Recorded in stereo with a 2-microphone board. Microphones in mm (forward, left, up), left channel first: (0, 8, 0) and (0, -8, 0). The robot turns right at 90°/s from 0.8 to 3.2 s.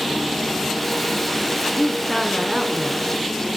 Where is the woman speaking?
125° left, 5 m; by 3.1 s 105° right, 5 m.